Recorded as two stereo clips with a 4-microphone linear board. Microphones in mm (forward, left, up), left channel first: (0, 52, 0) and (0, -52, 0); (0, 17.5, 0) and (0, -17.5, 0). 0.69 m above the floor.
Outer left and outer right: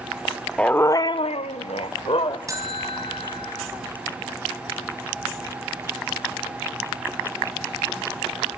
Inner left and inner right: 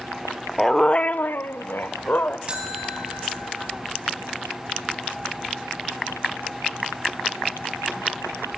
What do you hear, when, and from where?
0.6 s a dog barking: 10° left (ahead or behind), 0.8 m; by 2.4 s 60° left (ahead or behind), 1.3 m
2.5 s a buzzer: 35° right (ahead or behind), 3.5 m